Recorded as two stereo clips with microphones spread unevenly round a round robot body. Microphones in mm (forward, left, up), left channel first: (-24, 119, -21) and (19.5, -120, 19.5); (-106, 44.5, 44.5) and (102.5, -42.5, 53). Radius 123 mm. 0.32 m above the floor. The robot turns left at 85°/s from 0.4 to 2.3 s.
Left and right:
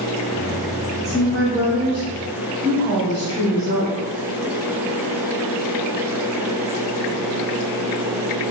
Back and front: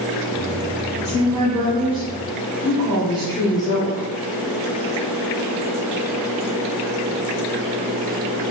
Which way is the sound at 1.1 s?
130° right.